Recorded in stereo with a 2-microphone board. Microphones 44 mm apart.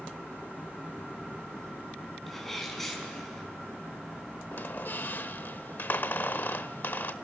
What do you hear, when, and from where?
2.3 s a sneeze: 5° left (ahead or behind), 5.5 m
4.5 s a squeak: 50° left (ahead or behind), 0.8 m